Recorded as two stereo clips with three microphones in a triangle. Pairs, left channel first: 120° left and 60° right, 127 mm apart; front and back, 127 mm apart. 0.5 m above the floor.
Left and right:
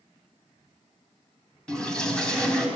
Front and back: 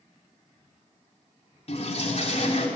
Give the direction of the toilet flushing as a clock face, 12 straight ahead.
11 o'clock.